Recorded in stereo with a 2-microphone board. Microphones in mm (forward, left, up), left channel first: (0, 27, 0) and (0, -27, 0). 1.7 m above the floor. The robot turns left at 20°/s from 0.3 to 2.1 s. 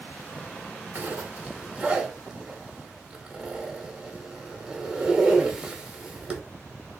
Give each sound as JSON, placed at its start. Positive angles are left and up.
{"t": 0.9, "sound": "a zipper", "side_deg": -35, "distance_m": 1.1}